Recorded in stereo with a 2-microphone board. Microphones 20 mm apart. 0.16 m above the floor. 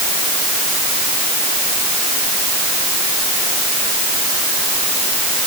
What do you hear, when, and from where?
Only background noise.